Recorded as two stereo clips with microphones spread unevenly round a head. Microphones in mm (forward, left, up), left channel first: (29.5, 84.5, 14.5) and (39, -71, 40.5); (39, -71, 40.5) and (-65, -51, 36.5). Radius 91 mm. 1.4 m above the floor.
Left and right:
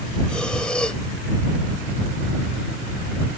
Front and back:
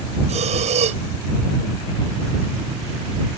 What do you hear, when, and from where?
0.3 s breathing: straight behind